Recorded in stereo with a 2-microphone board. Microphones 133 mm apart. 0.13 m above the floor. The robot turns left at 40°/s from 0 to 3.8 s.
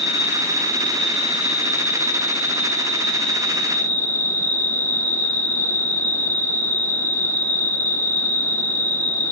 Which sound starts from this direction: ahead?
An insect, at 0.0 s.